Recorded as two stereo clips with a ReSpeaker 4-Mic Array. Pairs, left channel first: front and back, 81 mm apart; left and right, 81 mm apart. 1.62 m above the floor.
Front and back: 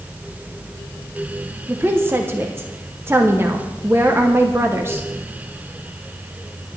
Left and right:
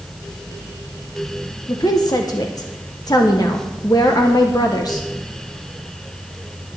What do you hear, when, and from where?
1.7 s a woman speaking: 120° left, 1.0 m